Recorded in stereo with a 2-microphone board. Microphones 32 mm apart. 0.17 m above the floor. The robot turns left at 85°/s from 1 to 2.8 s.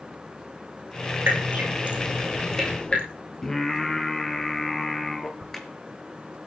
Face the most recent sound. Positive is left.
turn(degrees=10)  # may be behind; listen again after turning